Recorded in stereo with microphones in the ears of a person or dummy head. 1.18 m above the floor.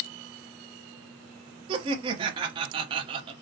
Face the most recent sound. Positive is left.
turn(degrees=-30)  # may be behind; listen again after turning